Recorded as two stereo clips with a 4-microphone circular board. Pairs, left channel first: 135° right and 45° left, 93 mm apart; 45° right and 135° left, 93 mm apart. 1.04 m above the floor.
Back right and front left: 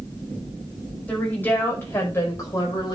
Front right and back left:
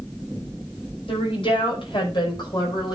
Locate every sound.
1.1 s a woman speaking: 60° right, 5.5 m; by 2.9 s 90° right, 5 m